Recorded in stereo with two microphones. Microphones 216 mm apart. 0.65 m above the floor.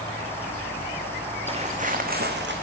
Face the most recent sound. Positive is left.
turn(degrees=-55)  # may be behind; listen again after turning